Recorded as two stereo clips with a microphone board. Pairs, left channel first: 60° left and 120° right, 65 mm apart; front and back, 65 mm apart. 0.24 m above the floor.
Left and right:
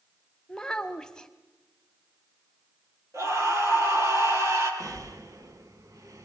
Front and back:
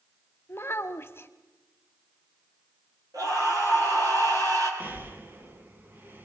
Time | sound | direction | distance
0.5 | a child speaking | 10° right | 1.0 m
3.1 | a scream | 155° right | 7.5 m
4.8 | breathing | 125° right | 1.3 m